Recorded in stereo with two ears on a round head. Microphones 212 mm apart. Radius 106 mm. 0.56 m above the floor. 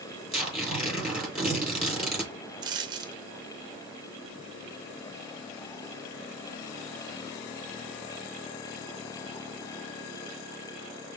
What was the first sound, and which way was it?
Tearing paper, centre (ahead or behind).